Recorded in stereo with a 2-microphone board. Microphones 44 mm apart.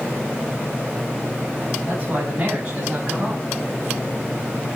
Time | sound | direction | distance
1.9 | a man speaking | 45° right (ahead or behind) | 3.5 m